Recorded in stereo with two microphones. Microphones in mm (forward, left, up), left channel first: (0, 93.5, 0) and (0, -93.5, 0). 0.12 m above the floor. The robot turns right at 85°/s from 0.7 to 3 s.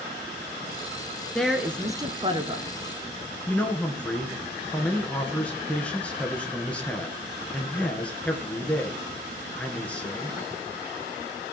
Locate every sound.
1.4 s a woman speaking: 5° left (ahead or behind), 1.1 m; by 2.7 s 30° right (ahead or behind), 1.1 m
3.5 s a man speaking: 5° left (ahead or behind), 2.0 m